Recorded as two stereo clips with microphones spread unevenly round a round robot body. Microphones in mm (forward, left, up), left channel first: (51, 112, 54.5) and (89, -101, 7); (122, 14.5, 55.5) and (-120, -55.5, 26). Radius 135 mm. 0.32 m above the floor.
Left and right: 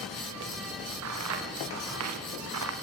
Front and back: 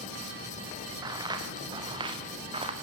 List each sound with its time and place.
1.0 s footsteps: 90° right, 5 m; by 2.7 s 95° right, 4 m